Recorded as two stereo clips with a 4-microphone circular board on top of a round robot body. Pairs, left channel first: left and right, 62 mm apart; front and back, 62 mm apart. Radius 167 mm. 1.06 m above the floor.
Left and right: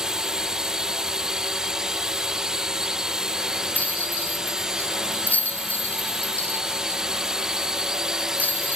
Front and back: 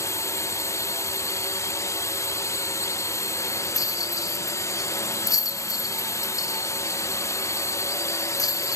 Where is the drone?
15° right.